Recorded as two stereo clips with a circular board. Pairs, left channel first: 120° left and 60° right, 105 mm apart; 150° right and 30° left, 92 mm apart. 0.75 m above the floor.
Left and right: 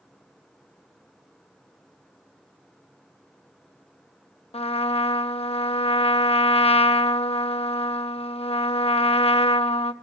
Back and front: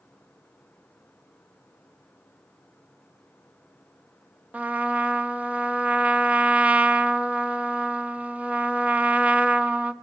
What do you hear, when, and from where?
4.5 s a trumpet: 100° left, 0.5 m